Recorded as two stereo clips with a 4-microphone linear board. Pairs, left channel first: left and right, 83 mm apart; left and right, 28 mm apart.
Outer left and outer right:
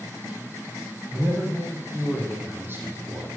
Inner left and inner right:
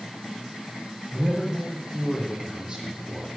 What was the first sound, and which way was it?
A man speaking, 20° right (ahead or behind).